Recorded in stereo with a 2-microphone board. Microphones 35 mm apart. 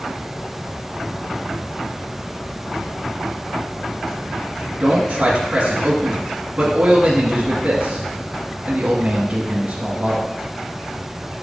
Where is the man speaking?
30° right (ahead or behind), 1.8 m.